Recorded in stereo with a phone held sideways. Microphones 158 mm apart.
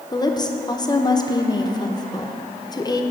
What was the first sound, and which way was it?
A woman speaking, 25° left (ahead or behind).